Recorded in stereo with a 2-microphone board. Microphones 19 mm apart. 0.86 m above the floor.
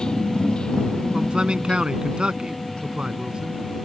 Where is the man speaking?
65° right (ahead or behind).